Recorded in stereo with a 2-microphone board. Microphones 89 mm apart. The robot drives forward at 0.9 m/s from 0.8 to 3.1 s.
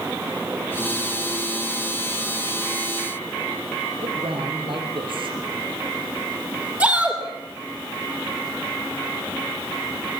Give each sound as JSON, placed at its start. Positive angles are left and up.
{"t": 4.0, "sound": "a man speaking", "side_deg": -70, "distance_m": 6.0}
{"t": 6.8, "sound": "a shout", "side_deg": -15, "distance_m": 7.0}